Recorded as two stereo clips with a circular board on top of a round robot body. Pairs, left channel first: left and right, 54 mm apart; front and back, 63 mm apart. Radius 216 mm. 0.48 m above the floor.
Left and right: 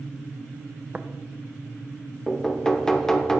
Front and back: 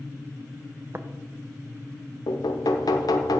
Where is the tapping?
140° right, 0.9 m.